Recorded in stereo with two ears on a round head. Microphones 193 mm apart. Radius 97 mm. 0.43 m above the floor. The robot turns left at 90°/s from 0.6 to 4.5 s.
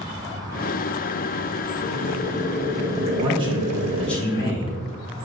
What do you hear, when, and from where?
1.8 s boiling: 85° left, 0.6 m; by 4.2 s 130° right, 0.6 m
3.2 s a man speaking: 110° right, 1.3 m; by 4.8 s 135° left, 1.3 m